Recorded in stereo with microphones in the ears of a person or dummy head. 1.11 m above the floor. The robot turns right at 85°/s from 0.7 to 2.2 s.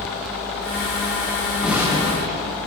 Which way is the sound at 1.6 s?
Straight behind.